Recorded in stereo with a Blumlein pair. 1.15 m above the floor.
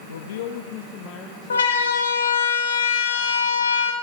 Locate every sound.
0.1 s a man speaking: 70° left, 0.9 m; by 2.1 s 25° left, 2.5 m
1.5 s a siren: 70° left, 2 m